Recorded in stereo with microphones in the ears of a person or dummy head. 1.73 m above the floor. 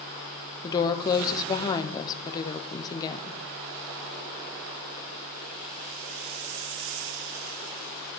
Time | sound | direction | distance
0.6 | a woman speaking | 20° left (ahead or behind) | 0.9 m